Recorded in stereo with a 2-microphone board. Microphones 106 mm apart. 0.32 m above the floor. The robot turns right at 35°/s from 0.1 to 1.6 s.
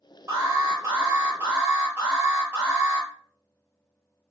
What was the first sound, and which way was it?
An alarm, 25° right (ahead or behind).